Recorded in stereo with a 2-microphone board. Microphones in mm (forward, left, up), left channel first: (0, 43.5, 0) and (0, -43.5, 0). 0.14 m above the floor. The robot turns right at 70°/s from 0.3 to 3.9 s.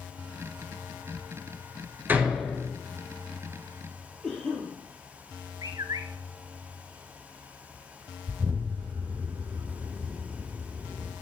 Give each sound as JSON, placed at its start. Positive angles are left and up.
{"t": 2.1, "sound": "a door slam", "azimuth_deg": -25, "distance_m": 1.4}
{"t": 4.2, "sound": "a cough", "side_deg": 5, "distance_m": 3.0}
{"t": 5.6, "sound": "a bird", "side_deg": -45, "distance_m": 0.6}
{"t": 8.3, "sound": "an explosion", "side_deg": -50, "distance_m": 1.9}